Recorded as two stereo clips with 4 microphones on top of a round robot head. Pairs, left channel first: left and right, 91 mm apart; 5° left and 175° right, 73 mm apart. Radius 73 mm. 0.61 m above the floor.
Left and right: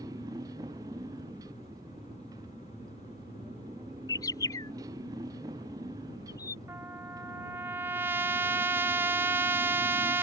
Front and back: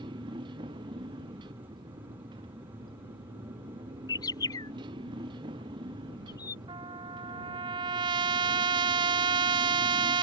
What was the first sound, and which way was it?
A motorcycle, 150° right.